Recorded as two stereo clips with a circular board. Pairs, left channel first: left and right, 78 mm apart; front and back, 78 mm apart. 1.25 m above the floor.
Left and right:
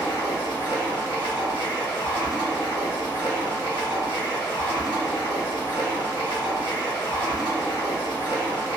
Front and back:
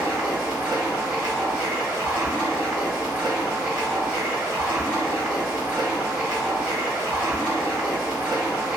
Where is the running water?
115° left, 1.7 m.